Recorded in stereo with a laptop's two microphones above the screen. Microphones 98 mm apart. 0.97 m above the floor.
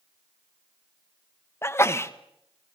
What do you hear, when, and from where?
1.6 s a sneeze: 25° left (ahead or behind), 1.1 m